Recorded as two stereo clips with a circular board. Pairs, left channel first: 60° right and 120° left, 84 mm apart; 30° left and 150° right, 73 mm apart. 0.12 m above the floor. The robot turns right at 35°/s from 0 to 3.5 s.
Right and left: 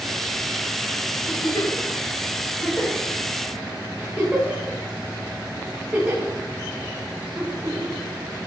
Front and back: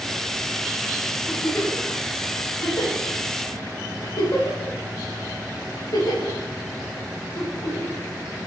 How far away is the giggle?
About 8 m.